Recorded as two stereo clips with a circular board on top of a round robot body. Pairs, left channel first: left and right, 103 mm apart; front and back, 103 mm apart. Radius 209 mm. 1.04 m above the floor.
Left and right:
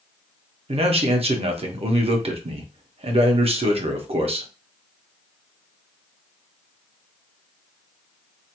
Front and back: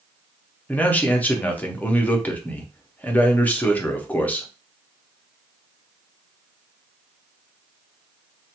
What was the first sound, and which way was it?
A man speaking, 75° right.